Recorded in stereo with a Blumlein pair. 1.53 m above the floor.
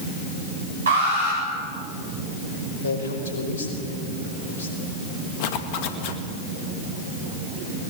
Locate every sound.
0.9 s an alarm: 65° right, 8.5 m
2.8 s a man speaking: 65° left, 5.5 m
5.4 s a zipper: 45° left, 1.8 m